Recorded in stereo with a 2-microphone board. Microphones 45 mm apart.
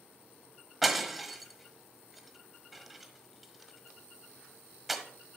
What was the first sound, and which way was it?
Breaking glass, centre (ahead or behind).